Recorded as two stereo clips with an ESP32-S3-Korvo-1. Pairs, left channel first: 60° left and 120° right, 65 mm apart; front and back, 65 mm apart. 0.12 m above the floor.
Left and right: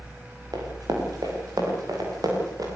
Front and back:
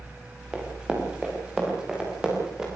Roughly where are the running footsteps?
Right.